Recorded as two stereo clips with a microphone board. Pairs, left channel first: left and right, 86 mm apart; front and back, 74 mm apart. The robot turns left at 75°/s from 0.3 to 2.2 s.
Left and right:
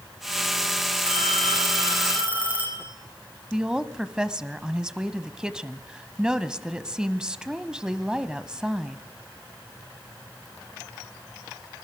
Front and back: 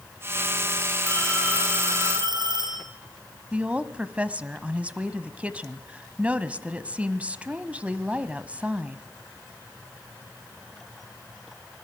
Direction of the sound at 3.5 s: 155° right.